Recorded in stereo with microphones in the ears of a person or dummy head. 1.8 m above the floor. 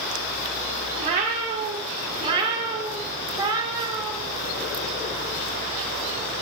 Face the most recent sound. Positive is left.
turn(degrees=-25)  # may be behind; listen again after turning